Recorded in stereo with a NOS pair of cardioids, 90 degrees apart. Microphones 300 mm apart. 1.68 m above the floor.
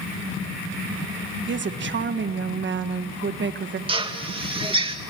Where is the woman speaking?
40° right, 1.5 m.